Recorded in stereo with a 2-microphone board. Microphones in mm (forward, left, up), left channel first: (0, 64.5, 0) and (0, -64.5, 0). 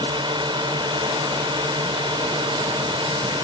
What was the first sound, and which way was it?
A drone, 40° right (ahead or behind).